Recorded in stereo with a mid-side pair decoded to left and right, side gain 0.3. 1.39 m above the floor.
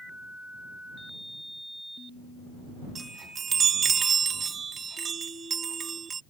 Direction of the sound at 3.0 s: 65° right.